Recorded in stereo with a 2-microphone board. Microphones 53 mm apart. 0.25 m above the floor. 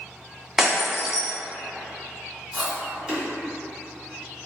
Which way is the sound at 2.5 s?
15° right (ahead or behind).